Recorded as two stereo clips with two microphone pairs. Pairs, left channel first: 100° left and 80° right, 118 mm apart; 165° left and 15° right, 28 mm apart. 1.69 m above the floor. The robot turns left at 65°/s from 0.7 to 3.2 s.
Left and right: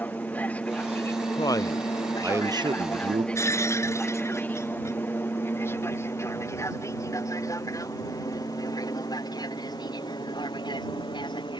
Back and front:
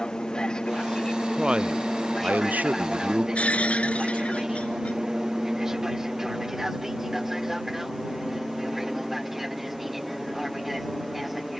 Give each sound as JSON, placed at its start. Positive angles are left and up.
{"t": 0.0, "sound": "an aircraft", "azimuth_deg": 160}
{"t": 1.4, "sound": "a man speaking", "azimuth_deg": 50}
{"t": 3.4, "sound": "breaking glass", "azimuth_deg": 155}